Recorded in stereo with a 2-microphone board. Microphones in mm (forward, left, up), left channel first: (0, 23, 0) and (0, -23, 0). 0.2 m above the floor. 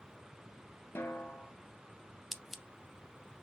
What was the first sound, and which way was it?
A snare drum, 55° left (ahead or behind).